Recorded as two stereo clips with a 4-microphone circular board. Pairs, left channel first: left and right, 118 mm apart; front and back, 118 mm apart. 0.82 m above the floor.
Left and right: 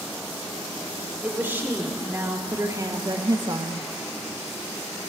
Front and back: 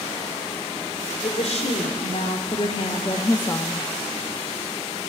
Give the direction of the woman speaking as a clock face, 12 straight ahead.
12 o'clock.